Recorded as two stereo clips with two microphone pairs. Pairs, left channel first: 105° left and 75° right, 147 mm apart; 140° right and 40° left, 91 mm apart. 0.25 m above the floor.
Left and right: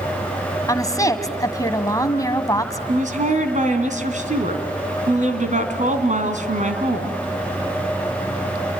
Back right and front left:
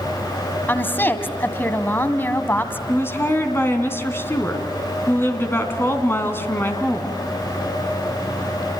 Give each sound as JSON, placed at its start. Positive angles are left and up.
{"t": 0.7, "sound": "a woman speaking", "azimuth_deg": 160, "distance_m": 1.7}
{"t": 2.9, "sound": "a woman speaking", "azimuth_deg": -80, "distance_m": 3.0}